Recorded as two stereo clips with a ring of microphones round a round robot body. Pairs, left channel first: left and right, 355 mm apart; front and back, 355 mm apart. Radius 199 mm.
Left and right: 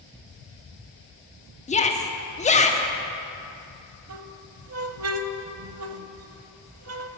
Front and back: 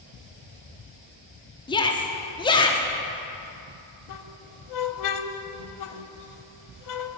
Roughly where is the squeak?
Ahead right.